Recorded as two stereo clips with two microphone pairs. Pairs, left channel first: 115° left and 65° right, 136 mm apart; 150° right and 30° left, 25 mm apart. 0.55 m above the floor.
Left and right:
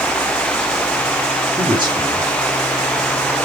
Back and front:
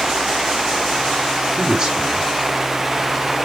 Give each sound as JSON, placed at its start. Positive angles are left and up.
{"t": 1.6, "sound": "a man speaking", "azimuth_deg": -15, "distance_m": 2.0}